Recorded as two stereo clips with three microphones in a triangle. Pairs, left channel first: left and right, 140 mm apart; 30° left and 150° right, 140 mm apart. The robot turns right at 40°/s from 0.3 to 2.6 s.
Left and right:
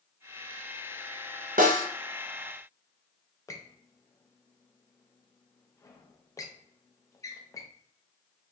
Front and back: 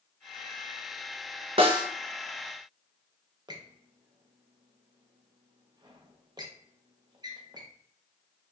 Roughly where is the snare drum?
Right.